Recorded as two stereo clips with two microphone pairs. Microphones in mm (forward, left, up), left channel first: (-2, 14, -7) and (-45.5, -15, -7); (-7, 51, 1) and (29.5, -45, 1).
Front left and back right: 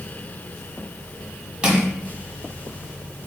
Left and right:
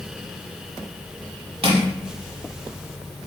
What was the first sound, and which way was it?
Crushing, 80° right.